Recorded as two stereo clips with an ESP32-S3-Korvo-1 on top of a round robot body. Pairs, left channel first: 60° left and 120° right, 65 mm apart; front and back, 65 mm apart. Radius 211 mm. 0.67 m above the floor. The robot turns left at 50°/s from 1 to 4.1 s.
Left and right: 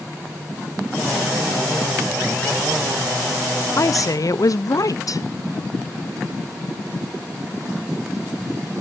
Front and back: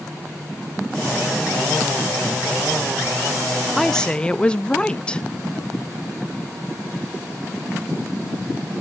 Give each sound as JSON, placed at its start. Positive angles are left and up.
{"t": 3.8, "sound": "a woman speaking", "azimuth_deg": 90, "distance_m": 0.9}